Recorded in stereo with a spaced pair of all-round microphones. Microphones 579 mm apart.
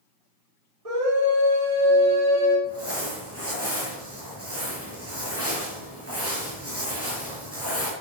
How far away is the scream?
About 3.5 m.